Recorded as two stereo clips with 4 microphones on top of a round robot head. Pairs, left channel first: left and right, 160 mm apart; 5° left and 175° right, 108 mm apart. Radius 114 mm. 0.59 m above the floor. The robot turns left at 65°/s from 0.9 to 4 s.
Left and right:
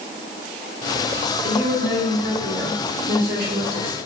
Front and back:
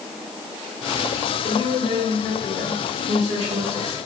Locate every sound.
1.4 s a woman speaking: 5° right, 2 m; by 4.0 s 165° right, 2 m